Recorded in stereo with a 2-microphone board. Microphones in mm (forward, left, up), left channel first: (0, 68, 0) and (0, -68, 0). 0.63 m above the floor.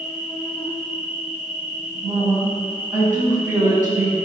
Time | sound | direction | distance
0.0 | an insect | 75° right (ahead or behind) | 2 m
2.0 | a woman speaking | 15° right (ahead or behind) | 4.5 m